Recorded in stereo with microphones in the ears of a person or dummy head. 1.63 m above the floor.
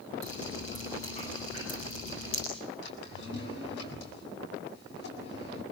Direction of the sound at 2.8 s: 70° left (ahead or behind).